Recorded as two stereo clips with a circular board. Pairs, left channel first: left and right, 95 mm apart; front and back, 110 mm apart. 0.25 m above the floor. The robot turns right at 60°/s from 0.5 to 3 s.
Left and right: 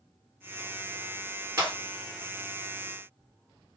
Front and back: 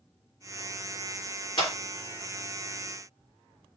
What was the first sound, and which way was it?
A clap, 35° right.